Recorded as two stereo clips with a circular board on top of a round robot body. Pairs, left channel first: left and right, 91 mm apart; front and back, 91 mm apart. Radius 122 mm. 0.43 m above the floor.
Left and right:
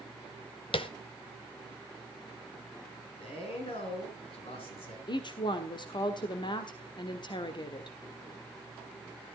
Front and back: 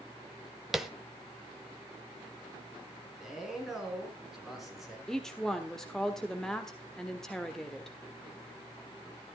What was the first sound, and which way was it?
Tapping, 95° left.